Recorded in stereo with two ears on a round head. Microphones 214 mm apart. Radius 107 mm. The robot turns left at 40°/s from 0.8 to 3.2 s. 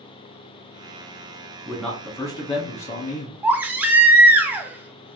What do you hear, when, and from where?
1.6 s a man speaking: 175° right, 1.4 m; by 3.3 s 125° left, 1.4 m
3.4 s a baby crying: 10° right (ahead or behind), 0.6 m